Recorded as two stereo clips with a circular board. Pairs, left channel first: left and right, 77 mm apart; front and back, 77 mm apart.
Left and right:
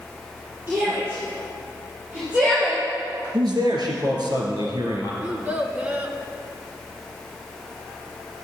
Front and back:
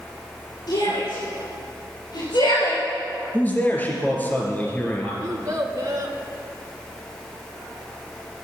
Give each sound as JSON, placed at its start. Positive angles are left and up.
{"t": 0.7, "sound": "a shout", "azimuth_deg": -25, "distance_m": 5.0}
{"t": 3.3, "sound": "a man speaking", "azimuth_deg": -70, "distance_m": 3.5}
{"t": 5.2, "sound": "a child speaking", "azimuth_deg": -150, "distance_m": 1.3}